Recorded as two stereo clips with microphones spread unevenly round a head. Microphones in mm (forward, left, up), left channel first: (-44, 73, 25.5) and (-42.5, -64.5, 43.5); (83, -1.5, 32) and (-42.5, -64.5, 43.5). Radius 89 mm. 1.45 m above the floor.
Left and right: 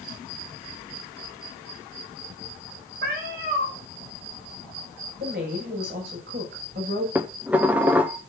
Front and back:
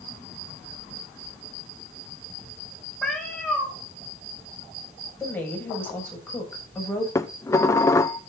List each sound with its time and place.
3.0 s a cat meowing: 60° right, 3 m
5.2 s a woman speaking: 50° right, 6.5 m
7.2 s dishes clattering: 35° right, 0.6 m